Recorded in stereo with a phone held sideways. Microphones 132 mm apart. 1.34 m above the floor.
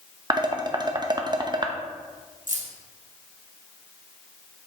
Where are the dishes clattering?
35° right (ahead or behind), 0.6 m.